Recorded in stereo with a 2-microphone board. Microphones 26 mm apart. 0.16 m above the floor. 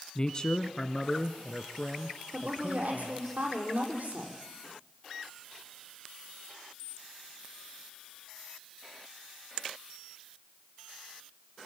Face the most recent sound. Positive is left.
turn(degrees=-65)  # may be behind; listen again after turning